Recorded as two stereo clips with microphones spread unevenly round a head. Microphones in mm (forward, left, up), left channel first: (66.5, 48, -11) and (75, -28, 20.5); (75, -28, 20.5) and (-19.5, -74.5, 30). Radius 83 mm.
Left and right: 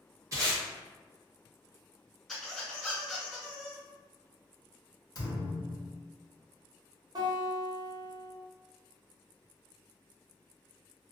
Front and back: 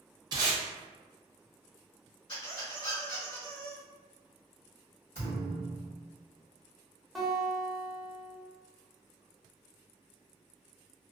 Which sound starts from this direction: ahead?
A squeak, at 2.3 s.